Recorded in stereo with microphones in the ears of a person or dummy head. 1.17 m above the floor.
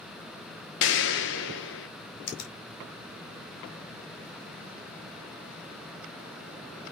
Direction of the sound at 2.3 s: 55° left (ahead or behind).